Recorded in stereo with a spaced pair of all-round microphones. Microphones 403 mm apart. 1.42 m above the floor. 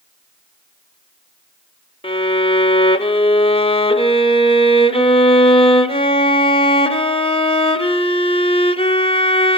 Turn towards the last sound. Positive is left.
turn(degrees=15)  # may be behind; listen again after turning